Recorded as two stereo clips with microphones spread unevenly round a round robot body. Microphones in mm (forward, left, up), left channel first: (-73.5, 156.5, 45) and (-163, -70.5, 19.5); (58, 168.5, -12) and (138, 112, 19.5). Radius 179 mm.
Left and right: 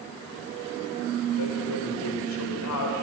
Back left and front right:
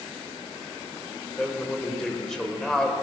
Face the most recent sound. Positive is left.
turn(degrees=60)